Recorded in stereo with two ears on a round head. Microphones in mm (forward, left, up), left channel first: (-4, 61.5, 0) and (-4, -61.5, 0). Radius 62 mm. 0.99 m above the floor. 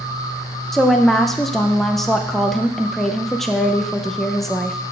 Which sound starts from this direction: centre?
A woman speaking, at 0.7 s.